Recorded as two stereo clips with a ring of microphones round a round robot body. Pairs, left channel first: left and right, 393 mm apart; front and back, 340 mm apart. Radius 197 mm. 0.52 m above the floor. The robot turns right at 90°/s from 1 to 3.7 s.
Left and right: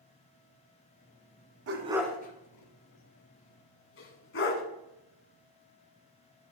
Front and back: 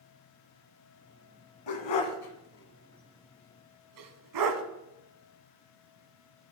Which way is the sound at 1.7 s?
35° right.